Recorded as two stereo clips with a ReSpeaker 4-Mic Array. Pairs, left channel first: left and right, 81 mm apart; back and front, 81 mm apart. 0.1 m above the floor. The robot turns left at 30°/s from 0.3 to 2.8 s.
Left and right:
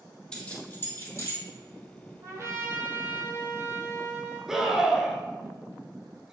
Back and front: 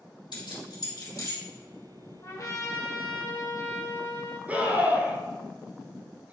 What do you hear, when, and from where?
0.3 s keys jangling: 170° left, 2.5 m; by 1.4 s 135° left, 2.5 m
2.2 s a trumpet: 130° right, 2.5 m; by 4.4 s 150° right, 2.5 m
4.5 s a scream: 15° right, 1.2 m